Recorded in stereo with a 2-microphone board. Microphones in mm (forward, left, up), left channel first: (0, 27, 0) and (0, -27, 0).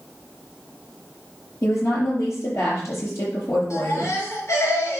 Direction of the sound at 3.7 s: 75° left (ahead or behind).